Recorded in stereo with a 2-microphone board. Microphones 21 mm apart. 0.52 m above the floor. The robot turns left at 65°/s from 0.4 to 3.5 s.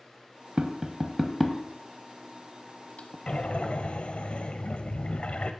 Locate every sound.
0.6 s tapping: 50° right (ahead or behind), 0.7 m; by 3.2 s 60° left (ahead or behind), 0.7 m
3.3 s breathing: 45° left (ahead or behind), 0.6 m; by 5.5 s 60° left (ahead or behind), 0.6 m